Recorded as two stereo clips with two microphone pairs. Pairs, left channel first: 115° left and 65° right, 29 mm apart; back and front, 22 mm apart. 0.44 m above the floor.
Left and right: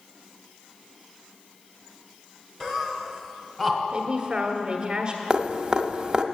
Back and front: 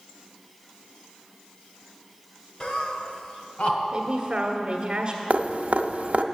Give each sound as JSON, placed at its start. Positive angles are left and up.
{"t": 2.6, "sound": "laughter", "azimuth_deg": -175, "distance_m": 1.5}
{"t": 3.9, "sound": "a man speaking", "azimuth_deg": -20, "distance_m": 1.4}
{"t": 5.3, "sound": "dripping", "azimuth_deg": -5, "distance_m": 0.7}